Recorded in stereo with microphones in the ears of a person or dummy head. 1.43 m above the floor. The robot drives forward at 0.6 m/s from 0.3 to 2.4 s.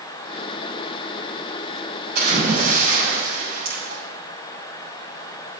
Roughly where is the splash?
Right.